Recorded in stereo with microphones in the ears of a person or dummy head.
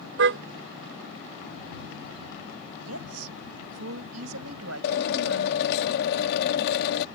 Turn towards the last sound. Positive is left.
turn(degrees=60)  # may be behind; listen again after turning